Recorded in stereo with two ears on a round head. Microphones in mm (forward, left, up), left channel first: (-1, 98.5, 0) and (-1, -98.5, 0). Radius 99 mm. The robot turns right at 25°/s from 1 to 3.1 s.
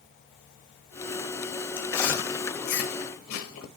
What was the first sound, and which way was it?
Chewing, 65° left (ahead or behind).